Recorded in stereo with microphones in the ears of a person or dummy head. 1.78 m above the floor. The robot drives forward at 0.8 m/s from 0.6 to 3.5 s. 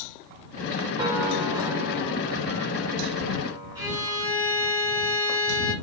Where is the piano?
20° right (ahead or behind), 5 m; by 4.2 s 15° right (ahead or behind), 7 m.